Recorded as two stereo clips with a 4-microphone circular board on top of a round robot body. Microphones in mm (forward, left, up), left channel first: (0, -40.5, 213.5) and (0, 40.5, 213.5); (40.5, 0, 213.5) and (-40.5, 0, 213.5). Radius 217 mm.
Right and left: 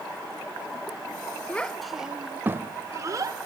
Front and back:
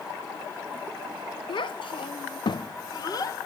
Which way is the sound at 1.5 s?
15° right.